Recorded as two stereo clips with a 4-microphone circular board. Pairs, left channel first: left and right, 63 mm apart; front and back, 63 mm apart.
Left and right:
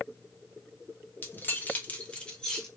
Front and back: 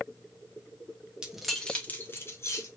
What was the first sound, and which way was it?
Keys jangling, 110° left.